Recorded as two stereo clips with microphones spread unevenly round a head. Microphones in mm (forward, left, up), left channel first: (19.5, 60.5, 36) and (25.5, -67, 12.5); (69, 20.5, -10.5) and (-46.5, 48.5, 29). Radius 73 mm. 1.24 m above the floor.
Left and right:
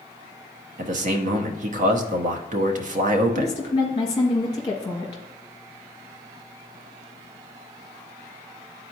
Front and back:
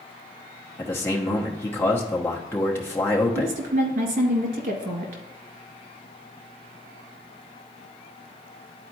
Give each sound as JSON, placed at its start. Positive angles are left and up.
{"t": 0.8, "sound": "a man speaking", "azimuth_deg": -80, "distance_m": 0.9}
{"t": 3.4, "sound": "a woman speaking", "azimuth_deg": 155, "distance_m": 1.8}